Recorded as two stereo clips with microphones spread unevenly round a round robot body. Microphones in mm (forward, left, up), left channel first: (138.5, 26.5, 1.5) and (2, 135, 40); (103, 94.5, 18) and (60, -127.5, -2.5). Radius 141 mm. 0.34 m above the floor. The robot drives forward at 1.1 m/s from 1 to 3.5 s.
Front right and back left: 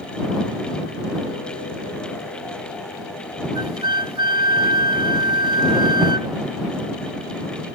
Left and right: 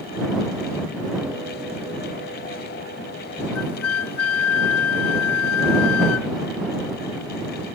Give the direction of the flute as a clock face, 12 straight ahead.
9 o'clock.